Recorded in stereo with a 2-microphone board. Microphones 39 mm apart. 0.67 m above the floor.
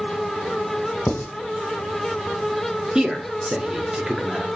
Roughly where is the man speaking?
Right.